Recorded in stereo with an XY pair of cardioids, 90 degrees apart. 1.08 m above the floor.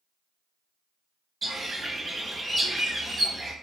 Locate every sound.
1.4 s a bird: 35° right, 0.9 m